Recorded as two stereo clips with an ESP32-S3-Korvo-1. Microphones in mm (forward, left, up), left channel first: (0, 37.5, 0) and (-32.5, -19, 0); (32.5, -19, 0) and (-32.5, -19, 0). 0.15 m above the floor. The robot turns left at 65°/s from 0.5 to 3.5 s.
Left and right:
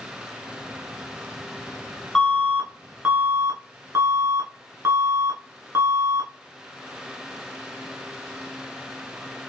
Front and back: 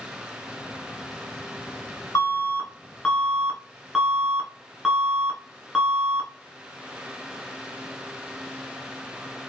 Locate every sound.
2.1 s an alarm: 10° right, 1.2 m; by 6.3 s 100° right, 1.2 m